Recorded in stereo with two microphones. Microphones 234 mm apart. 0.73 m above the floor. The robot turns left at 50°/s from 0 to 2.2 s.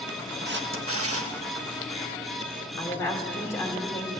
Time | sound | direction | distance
0.5 | a camera shutter | 50° right | 0.8 m
2.8 | a woman speaking | 10° left (ahead or behind) | 1.8 m